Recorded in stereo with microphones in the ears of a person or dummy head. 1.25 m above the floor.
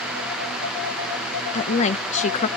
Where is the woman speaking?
40° left (ahead or behind), 0.7 m.